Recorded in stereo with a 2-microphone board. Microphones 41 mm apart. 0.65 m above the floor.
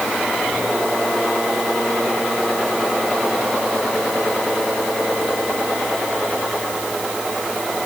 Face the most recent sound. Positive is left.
No sound to turn to.